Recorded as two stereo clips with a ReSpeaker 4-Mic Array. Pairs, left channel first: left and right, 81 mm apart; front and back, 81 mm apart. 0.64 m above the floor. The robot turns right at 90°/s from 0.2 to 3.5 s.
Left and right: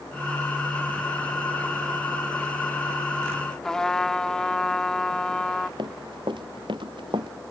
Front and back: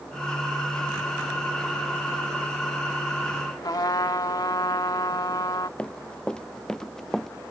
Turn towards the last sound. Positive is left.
turn(degrees=-85)